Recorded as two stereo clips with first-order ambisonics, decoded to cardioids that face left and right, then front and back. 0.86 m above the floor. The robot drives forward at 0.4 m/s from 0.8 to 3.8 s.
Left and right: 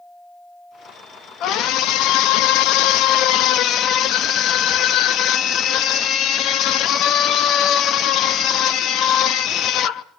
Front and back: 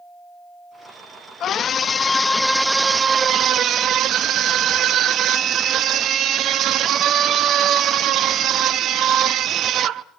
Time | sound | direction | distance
1.4 | a scream | 55° left | 0.8 m